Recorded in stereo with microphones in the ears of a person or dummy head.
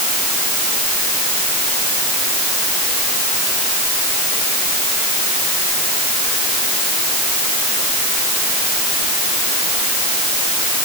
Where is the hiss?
I don't hear a hiss.